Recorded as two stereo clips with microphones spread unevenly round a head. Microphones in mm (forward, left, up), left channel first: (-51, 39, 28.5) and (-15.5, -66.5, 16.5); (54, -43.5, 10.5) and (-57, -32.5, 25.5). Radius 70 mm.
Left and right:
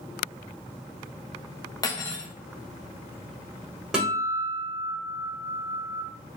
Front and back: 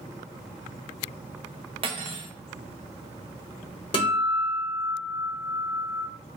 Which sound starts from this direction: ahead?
A guitar, at 3.9 s.